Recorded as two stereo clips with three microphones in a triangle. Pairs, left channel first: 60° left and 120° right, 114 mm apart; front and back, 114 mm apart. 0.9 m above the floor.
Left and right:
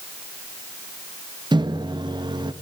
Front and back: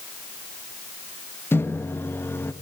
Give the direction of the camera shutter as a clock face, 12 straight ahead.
No camera shutter in this recording.